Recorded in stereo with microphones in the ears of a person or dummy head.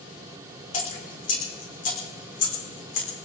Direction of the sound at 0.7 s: 50° left (ahead or behind).